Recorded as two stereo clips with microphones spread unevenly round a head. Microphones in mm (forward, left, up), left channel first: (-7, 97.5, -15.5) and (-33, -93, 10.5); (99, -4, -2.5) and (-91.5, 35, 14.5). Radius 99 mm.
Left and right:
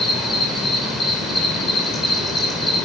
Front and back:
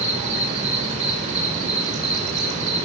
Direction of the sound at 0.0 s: 175° right.